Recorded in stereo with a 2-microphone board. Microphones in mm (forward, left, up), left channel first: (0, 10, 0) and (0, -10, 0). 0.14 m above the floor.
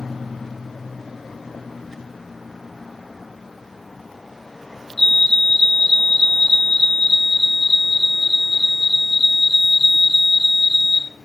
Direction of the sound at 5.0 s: 30° left (ahead or behind).